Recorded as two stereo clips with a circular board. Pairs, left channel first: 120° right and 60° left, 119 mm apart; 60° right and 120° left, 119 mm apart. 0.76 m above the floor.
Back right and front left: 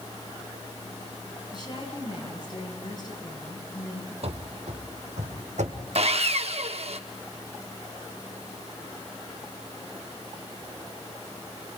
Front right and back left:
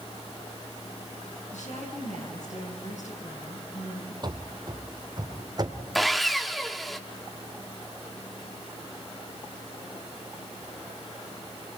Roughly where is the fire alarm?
I don't hear a fire alarm.